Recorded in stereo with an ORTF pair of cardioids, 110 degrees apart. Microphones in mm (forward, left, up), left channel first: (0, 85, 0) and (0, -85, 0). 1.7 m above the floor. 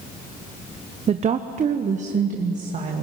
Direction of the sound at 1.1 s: 40° right.